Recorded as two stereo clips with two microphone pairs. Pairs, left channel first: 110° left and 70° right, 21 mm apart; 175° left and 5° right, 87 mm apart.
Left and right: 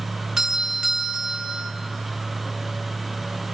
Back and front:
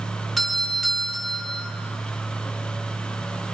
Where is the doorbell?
95° right, 1.5 m.